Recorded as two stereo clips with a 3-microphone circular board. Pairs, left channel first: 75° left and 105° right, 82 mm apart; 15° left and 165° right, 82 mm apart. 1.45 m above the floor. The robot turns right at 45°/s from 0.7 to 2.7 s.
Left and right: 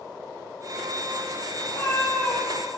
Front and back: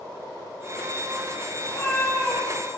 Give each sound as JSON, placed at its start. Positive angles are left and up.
{"t": 1.6, "sound": "a cat meowing", "azimuth_deg": 55, "distance_m": 1.4}